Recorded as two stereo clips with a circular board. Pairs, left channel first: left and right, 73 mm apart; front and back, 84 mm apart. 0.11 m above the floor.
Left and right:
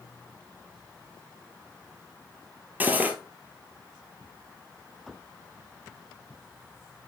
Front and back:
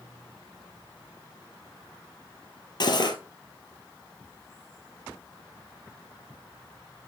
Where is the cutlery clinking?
25° right, 1.3 m.